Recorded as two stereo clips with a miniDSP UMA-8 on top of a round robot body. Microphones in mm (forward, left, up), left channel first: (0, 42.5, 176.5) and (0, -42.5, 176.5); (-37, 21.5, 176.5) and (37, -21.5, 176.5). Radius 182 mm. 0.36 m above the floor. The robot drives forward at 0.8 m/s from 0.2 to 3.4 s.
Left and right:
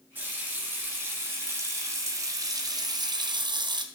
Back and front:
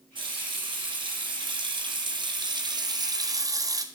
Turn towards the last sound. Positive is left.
turn(degrees=-70)